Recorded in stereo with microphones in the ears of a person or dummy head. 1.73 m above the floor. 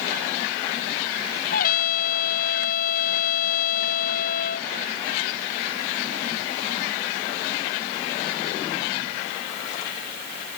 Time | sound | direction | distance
1.5 | a trumpet | 55° left (ahead or behind) | ?